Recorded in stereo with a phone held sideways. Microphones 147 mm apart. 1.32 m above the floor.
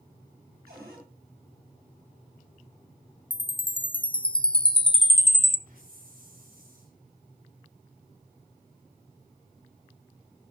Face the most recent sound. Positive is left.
turn(degrees=-75)  # may be behind; listen again after turning